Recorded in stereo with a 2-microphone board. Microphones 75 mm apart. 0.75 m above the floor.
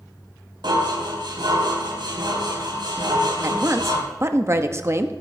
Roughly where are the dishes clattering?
Right.